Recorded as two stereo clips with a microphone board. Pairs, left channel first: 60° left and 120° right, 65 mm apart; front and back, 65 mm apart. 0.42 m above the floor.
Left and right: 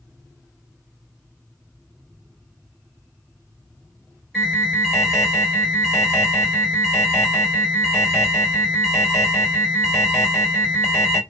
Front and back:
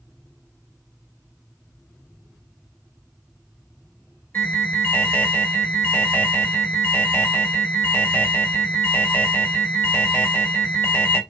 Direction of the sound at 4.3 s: 20° right.